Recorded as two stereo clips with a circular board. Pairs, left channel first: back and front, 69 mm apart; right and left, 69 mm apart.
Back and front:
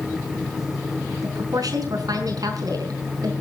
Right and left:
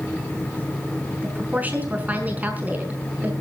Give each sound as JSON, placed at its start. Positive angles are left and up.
{"t": 1.2, "sound": "a woman speaking", "azimuth_deg": 25, "distance_m": 5.0}